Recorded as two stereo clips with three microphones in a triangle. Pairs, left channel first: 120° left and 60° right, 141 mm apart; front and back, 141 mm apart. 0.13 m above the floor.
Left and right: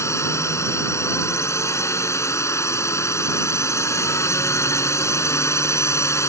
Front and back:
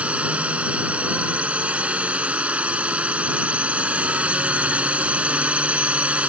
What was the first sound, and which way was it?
A drone, 115° left.